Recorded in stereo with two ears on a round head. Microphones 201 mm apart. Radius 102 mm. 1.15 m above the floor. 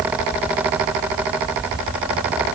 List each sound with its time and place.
Only background noise.